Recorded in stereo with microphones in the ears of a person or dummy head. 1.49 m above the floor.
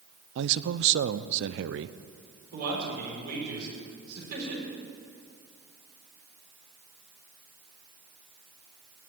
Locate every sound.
0.3 s a man speaking: 70° right (ahead or behind), 0.6 m
2.5 s a man speaking: 55° right (ahead or behind), 5.5 m